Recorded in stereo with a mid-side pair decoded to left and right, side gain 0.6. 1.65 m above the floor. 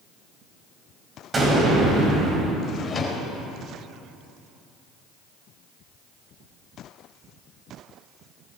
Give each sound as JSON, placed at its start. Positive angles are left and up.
{"t": 1.3, "sound": "an explosion", "azimuth_deg": -25, "distance_m": 8.0}
{"t": 2.6, "sound": "a drawer", "azimuth_deg": 30, "distance_m": 5.0}